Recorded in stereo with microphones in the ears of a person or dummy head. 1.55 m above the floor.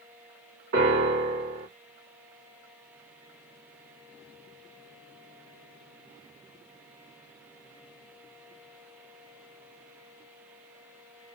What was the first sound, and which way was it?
A piano, 65° right (ahead or behind).